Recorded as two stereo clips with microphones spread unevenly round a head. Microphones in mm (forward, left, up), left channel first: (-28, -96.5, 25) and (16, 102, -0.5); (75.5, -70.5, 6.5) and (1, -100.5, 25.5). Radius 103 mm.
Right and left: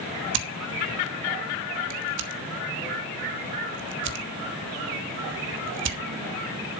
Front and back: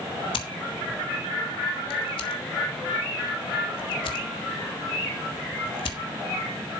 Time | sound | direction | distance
0.3 | scissors | 50° left | 1.3 m